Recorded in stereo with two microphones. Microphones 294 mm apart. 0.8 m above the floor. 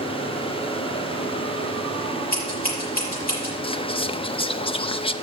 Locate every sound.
2.3 s scissors: 30° left (ahead or behind), 6 m
3.6 s whispering: 20° left (ahead or behind), 0.5 m